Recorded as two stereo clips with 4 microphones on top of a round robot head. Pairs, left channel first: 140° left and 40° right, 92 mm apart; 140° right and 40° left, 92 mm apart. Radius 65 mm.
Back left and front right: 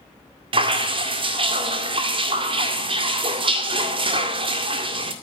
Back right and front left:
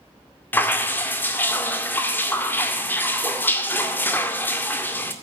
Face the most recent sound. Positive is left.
turn(degrees=-70)